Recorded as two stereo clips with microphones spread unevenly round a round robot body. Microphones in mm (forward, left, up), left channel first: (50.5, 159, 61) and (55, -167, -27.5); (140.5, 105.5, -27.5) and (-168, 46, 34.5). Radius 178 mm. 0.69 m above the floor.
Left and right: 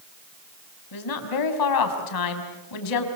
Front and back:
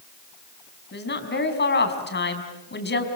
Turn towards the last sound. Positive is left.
turn(degrees=65)